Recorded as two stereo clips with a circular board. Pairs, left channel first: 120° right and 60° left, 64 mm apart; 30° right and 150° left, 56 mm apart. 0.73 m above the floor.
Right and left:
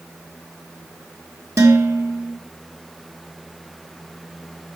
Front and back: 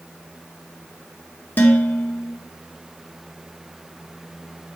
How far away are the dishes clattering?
About 1.0 m.